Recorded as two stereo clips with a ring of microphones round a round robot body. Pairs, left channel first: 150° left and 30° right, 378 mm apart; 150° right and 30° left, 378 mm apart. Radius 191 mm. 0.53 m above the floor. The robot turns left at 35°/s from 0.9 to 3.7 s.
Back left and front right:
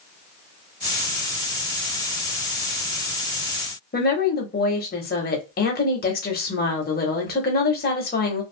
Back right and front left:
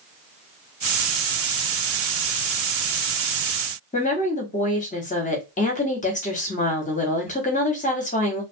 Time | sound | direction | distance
3.9 | a woman speaking | 170° left | 1.0 m